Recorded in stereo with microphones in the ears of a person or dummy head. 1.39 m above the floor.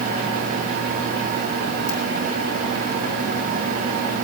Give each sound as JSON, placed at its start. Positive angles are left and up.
{"t": 1.9, "sound": "a ringtone", "side_deg": 50, "distance_m": 9.5}